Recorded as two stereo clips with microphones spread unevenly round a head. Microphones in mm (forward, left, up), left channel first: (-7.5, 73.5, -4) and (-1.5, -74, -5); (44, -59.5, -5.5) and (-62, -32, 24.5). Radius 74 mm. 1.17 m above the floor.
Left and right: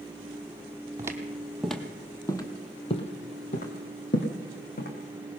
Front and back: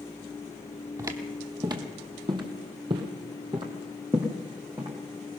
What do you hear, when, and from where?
1.0 s footsteps: 155° right, 2 m; by 4.9 s 105° left, 3.5 m